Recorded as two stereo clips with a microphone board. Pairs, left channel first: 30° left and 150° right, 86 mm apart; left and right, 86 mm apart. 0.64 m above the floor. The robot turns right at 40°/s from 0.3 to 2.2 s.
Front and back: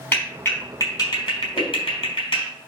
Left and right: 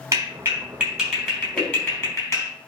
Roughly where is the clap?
Ahead right.